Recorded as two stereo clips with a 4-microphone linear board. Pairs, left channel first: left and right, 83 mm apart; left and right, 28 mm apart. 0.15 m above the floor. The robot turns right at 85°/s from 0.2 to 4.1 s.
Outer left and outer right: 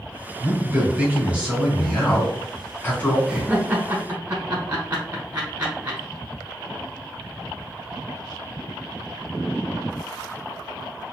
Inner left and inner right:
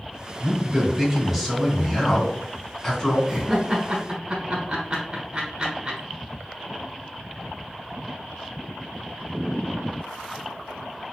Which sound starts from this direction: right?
A man speaking, at 0.4 s.